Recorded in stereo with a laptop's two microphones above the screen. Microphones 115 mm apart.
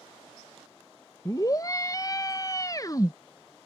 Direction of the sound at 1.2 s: 30° left (ahead or behind).